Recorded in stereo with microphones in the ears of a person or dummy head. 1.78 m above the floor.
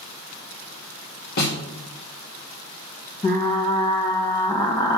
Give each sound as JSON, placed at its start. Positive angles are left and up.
{"t": 1.4, "sound": "a snare drum", "side_deg": 50, "distance_m": 2.5}
{"t": 3.2, "sound": "frying", "side_deg": 20, "distance_m": 1.2}